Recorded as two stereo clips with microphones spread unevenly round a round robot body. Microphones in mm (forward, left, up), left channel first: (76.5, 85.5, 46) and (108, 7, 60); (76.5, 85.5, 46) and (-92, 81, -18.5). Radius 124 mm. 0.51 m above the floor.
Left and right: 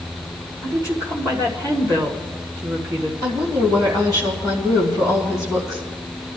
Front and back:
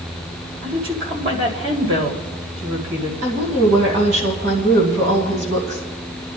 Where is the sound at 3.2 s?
130° right, 2.5 m.